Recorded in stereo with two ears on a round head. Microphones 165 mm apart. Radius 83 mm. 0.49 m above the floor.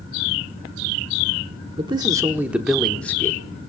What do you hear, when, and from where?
1.8 s a man speaking: 30° right (ahead or behind), 1.0 m; by 3.4 s 15° left (ahead or behind), 1.1 m